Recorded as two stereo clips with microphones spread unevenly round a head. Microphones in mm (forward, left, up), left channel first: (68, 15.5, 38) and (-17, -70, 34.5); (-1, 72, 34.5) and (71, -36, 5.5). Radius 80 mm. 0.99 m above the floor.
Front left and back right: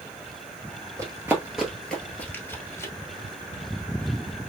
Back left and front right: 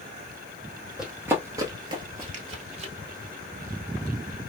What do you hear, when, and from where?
1.0 s running footsteps: 170° right, 1.0 m; by 2.9 s 15° right, 1.5 m